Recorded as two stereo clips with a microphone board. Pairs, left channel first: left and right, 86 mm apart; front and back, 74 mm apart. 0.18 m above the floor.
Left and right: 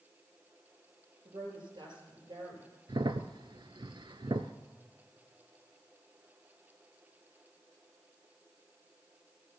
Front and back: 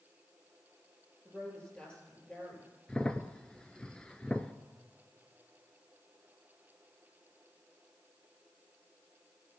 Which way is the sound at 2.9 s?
75° right.